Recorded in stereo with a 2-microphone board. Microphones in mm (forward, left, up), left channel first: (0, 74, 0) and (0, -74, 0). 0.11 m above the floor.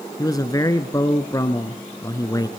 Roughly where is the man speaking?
Left.